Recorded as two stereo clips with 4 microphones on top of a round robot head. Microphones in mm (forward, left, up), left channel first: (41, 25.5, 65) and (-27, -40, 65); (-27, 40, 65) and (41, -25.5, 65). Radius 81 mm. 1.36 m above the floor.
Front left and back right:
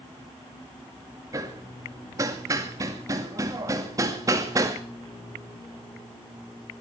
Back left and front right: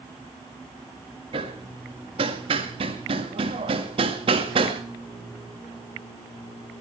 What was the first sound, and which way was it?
Hammering, 80° right.